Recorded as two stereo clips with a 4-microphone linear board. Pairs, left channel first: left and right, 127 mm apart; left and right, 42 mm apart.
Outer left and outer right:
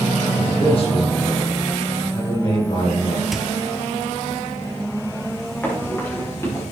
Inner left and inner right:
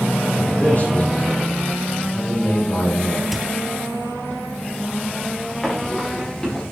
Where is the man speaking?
50° left (ahead or behind), 6.5 m; by 3.2 s 45° left (ahead or behind), 8 m.